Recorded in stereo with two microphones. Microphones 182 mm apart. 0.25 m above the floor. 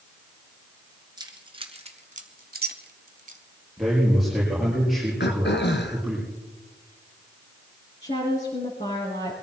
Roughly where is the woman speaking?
Left.